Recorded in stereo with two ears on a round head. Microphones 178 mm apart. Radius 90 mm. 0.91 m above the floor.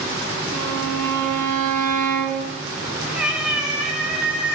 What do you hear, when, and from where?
0.5 s a violin: 40° right (ahead or behind), 3.5 m
3.1 s a cat meowing: 5° right (ahead or behind), 2 m